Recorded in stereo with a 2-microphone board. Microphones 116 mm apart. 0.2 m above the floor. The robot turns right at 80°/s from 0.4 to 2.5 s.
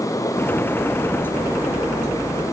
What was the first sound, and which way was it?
Only background noise.